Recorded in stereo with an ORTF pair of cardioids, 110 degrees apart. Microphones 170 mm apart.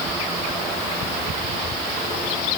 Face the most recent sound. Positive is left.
No sound to turn to.